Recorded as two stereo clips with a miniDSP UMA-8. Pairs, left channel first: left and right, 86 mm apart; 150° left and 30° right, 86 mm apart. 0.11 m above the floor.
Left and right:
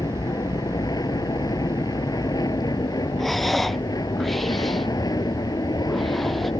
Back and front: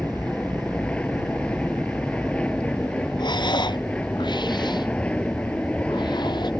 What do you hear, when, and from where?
0.0 s an aircraft: 75° left
3.2 s breathing: straight behind